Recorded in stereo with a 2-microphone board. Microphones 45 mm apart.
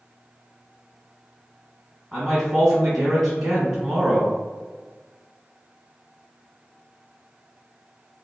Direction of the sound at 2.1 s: 15° right (ahead or behind).